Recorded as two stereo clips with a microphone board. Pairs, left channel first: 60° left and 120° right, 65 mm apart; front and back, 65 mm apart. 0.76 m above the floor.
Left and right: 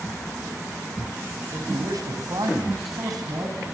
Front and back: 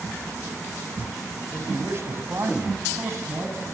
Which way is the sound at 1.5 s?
130° right.